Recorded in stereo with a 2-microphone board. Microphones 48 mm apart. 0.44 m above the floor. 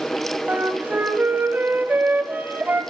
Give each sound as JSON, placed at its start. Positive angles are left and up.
{"t": 0.5, "sound": "a flute", "side_deg": -40, "distance_m": 1.4}